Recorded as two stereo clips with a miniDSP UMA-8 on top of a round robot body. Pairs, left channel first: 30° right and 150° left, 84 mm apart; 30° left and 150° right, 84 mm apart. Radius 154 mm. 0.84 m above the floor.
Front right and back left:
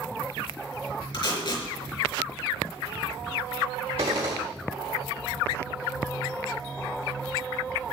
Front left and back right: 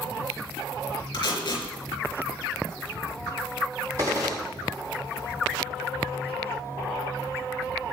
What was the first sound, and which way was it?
Tape being pulled, 5° right.